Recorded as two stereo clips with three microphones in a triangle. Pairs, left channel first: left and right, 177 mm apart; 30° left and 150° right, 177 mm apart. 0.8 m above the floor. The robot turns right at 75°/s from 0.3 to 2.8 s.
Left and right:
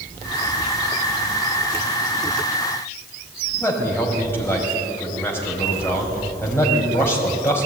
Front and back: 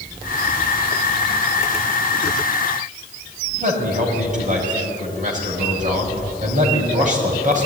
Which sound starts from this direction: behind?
A man speaking, at 3.6 s.